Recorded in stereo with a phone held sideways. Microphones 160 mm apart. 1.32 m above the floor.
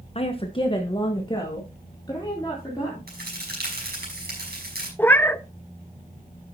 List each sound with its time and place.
0.1 s a woman speaking: 40° left (ahead or behind), 0.9 m; by 3.0 s 25° left (ahead or behind), 4 m
3.1 s a crack: 80° right, 5.5 m
5.0 s a cat meowing: 10° left (ahead or behind), 0.6 m